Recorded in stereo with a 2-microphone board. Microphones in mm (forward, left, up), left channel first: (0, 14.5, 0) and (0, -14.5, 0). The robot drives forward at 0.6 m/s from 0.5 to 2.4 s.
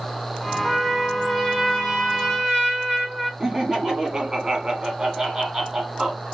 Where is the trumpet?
5° right (ahead or behind), 2.5 m.